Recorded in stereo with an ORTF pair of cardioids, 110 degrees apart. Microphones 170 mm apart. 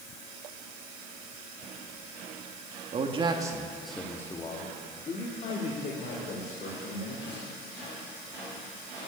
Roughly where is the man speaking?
Ahead right.